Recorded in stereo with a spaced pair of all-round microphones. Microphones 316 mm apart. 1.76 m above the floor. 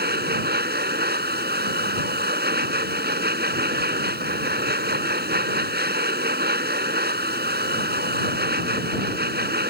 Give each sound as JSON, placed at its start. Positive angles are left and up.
{"t": 0.0, "sound": "a machine running", "side_deg": -30}